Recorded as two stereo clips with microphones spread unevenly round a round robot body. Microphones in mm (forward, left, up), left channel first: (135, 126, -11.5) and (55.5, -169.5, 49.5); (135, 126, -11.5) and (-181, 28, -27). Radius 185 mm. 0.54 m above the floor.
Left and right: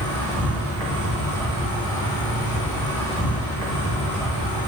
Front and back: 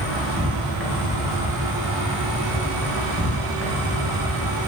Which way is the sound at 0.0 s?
110° left.